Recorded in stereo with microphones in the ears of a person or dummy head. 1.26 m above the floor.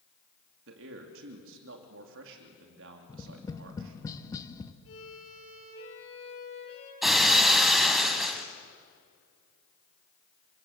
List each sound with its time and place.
0.7 s a man speaking: 65° right (ahead or behind), 2.5 m
3.1 s tapping: 15° left (ahead or behind), 1.3 m
4.8 s a violin: 75° left (ahead or behind), 9.5 m
7.0 s breaking glass: centre (ahead or behind), 2 m